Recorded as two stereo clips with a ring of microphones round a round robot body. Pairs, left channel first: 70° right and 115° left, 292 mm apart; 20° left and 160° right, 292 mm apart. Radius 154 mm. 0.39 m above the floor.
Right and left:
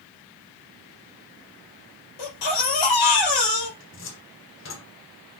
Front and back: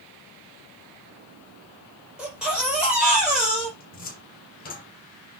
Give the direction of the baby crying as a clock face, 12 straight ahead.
2 o'clock.